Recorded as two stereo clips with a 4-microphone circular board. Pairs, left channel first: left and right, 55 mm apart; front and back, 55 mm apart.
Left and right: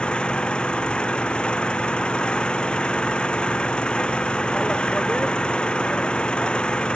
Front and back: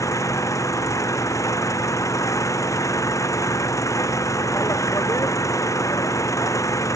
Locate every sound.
0.0 s an engine running: 20° left